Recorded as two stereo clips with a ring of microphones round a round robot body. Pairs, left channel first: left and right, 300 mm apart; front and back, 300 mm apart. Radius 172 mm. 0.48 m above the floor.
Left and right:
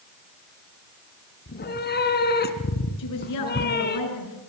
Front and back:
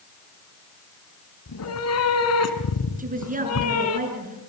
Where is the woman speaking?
120° left, 8 m.